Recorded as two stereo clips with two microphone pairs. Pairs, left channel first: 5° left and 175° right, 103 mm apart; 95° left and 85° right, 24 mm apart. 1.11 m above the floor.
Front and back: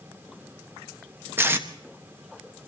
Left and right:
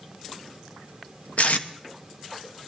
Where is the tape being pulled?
120° left, 1.1 m.